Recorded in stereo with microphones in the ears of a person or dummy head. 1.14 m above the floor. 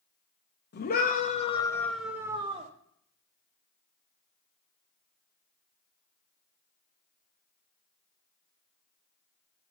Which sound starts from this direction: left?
A scream, at 0.7 s.